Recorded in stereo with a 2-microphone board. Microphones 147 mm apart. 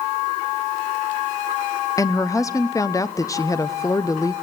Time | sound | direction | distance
2.0 | a woman speaking | 25° left (ahead or behind) | 0.8 m